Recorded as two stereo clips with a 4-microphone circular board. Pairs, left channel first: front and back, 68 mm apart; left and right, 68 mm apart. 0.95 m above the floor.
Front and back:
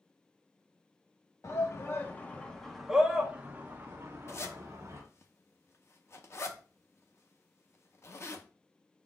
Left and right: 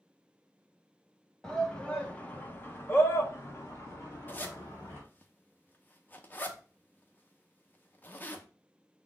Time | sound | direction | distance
1.4 | a shout | 15° left | 1.0 m
4.3 | a zipper | 35° left | 0.6 m